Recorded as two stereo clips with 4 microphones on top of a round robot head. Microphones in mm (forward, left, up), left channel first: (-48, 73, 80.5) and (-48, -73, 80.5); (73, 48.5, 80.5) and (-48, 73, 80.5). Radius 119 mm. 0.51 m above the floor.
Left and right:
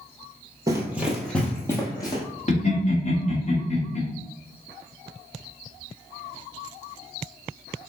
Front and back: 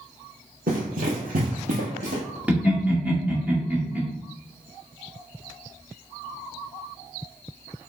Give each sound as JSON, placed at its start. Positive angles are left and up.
{"t": 0.7, "sound": "running footsteps", "azimuth_deg": -155, "distance_m": 0.9}
{"t": 2.5, "sound": "laughter", "azimuth_deg": 95, "distance_m": 1.8}